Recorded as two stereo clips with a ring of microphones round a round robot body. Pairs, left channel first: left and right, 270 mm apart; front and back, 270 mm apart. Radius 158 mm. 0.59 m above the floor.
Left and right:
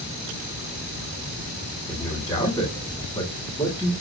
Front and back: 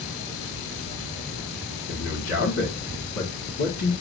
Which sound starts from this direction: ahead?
A man speaking, at 1.9 s.